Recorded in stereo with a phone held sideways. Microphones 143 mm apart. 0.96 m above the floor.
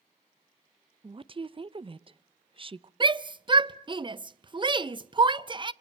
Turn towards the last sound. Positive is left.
turn(degrees=-35)  # may be behind; listen again after turning